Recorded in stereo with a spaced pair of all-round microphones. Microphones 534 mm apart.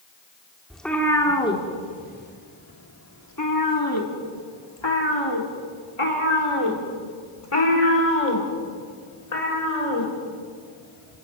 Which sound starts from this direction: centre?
A cat meowing, at 0.7 s.